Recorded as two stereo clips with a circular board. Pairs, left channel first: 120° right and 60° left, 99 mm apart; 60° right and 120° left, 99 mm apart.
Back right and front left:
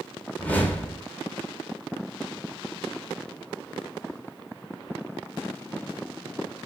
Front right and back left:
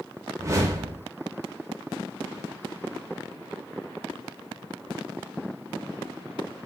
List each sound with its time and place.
0.4 s a whoosh: 170° left, 0.7 m